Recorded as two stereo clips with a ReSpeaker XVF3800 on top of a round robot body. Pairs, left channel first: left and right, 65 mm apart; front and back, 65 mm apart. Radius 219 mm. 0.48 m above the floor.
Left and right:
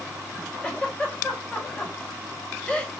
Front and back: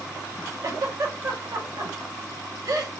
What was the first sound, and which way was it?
A giggle, 160° left.